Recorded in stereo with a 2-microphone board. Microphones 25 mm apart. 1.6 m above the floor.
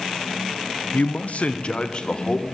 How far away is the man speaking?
About 0.6 m.